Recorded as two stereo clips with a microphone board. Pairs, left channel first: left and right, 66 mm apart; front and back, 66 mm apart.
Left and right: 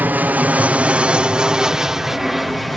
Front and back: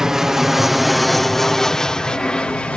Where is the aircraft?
105° right; by 2.8 s 5° left.